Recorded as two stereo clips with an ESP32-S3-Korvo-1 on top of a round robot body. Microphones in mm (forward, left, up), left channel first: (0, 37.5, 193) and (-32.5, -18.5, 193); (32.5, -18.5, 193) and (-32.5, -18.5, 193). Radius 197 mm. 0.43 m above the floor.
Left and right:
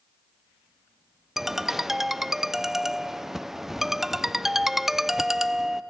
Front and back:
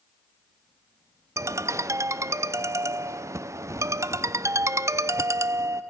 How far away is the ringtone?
About 0.6 m.